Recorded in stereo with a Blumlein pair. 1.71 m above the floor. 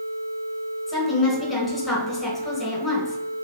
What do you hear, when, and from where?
0.9 s a woman speaking: 15° left, 1.6 m